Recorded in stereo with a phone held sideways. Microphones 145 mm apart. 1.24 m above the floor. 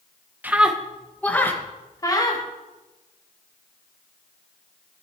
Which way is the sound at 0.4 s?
10° right (ahead or behind).